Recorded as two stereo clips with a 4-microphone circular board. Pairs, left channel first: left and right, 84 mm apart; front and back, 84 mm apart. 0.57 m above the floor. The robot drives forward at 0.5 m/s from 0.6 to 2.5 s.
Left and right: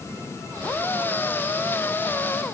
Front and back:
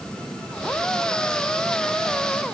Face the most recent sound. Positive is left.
No sound to turn to.